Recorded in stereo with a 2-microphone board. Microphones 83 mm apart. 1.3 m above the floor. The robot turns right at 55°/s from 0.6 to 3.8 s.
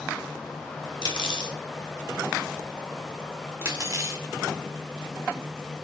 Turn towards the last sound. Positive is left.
turn(degrees=-40)  # may be behind; listen again after turning